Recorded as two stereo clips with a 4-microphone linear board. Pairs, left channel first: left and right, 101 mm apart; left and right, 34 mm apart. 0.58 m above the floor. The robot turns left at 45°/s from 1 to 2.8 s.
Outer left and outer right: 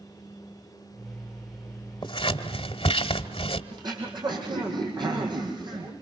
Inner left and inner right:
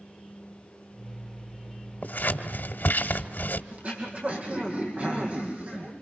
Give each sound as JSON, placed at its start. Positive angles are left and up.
{"t": 2.0, "sound": "scissors", "side_deg": 55, "distance_m": 1.5}
{"t": 3.7, "sound": "throat clearing", "side_deg": -50, "distance_m": 5.0}